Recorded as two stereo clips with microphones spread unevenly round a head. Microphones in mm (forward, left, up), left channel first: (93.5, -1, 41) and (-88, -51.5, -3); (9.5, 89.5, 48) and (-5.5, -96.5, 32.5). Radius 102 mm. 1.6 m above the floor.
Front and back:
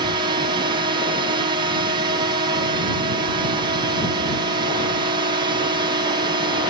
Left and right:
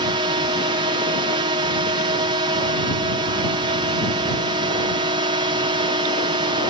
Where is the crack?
No crack in this recording.